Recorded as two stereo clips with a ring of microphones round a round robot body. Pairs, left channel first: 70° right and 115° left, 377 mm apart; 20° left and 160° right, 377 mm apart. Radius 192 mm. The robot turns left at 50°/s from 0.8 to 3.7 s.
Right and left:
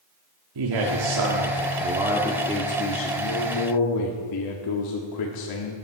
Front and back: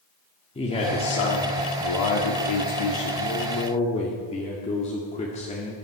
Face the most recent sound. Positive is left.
turn(degrees=-50)